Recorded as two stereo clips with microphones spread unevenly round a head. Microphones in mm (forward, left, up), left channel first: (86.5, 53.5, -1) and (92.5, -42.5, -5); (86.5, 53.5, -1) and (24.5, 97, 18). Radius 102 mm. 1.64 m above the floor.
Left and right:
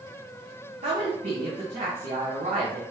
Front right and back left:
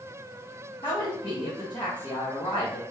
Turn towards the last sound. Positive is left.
turn(degrees=-105)